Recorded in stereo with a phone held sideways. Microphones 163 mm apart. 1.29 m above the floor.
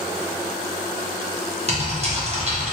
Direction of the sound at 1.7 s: 40° right (ahead or behind).